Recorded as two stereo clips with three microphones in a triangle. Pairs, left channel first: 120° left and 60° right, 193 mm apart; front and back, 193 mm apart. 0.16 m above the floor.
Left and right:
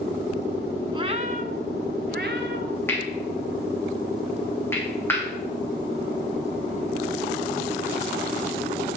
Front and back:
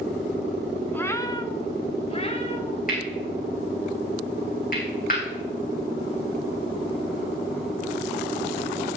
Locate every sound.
0.9 s a cat meowing: 70° right, 0.8 m; by 2.8 s 55° right, 2.0 m
2.9 s cutlery clinking: 40° left, 5 m